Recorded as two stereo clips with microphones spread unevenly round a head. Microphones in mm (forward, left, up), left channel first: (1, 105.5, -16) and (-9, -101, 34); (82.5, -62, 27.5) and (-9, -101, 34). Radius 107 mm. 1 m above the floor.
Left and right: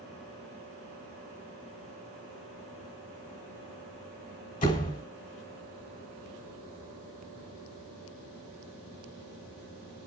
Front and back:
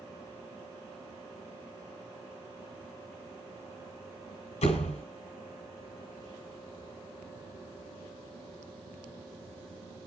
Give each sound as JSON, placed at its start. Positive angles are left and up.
{"t": 4.6, "sound": "a door slam", "azimuth_deg": 30, "distance_m": 3.5}